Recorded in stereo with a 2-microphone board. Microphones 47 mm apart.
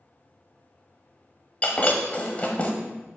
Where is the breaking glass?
30° left (ahead or behind), 1.1 m.